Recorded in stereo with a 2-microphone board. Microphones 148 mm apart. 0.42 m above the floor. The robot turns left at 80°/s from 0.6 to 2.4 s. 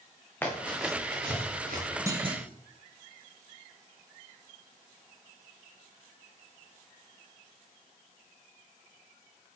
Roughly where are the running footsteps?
Centre.